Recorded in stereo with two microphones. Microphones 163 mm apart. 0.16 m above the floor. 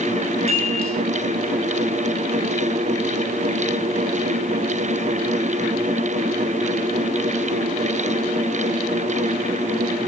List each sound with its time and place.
0.5 s a chime: 75° left (ahead or behind), 4 m